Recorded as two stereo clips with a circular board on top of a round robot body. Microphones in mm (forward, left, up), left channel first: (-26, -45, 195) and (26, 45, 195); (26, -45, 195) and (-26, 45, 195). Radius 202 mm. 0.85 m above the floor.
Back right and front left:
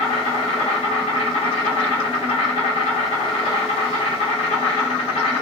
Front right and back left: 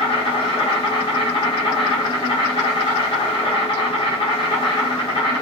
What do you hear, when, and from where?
0.0 s an insect: 95° right, 0.8 m